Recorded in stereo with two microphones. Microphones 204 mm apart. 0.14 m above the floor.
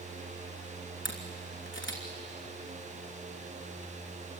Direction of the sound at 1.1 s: 70° left (ahead or behind).